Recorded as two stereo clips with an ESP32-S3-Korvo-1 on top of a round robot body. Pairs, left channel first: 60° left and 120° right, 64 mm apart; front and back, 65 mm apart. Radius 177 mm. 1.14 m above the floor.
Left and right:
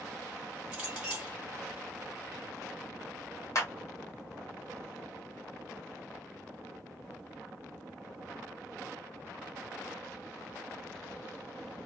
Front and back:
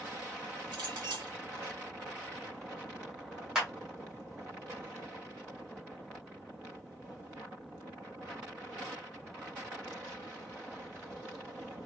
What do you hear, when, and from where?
0.7 s a clink: 165° left, 1.2 m
3.5 s a clap: 100° left, 1.2 m